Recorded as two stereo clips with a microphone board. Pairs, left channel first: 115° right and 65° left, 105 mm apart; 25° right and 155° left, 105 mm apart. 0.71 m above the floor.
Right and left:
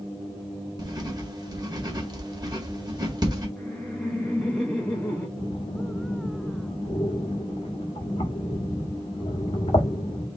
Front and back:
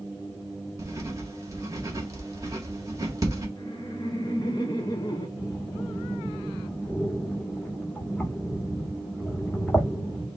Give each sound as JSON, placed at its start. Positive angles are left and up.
{"t": 0.8, "sound": "writing", "azimuth_deg": 105, "distance_m": 1.6}
{"t": 3.6, "sound": "laughter", "azimuth_deg": -40, "distance_m": 1.0}
{"t": 5.4, "sound": "breathing", "azimuth_deg": -100, "distance_m": 1.4}